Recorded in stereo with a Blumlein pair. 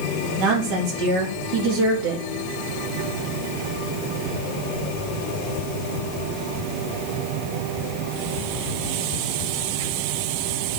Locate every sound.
0.4 s a woman speaking: 30° right, 3.5 m